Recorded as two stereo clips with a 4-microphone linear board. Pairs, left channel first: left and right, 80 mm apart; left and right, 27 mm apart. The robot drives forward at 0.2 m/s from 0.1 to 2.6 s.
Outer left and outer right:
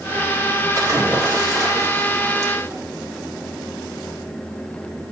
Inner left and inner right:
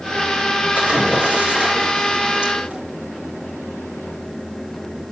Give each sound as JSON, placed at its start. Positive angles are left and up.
{"t": 0.8, "sound": "a splash", "side_deg": -50, "distance_m": 4.5}